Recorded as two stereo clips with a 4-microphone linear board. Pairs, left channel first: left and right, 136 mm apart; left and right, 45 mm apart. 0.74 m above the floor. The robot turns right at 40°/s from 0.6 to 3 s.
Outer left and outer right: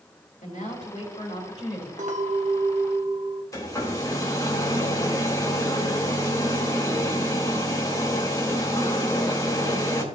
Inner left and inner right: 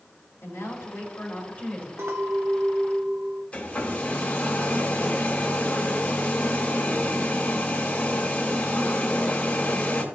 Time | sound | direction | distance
0.4 | a woman speaking | 105° left | 4 m
2.0 | a clink | 70° right | 1.2 m
3.5 | a hair dryer | 25° left (ahead or behind) | 1.8 m